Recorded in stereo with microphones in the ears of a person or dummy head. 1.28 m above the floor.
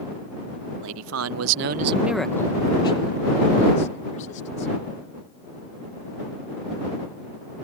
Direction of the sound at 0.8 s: 75° right (ahead or behind).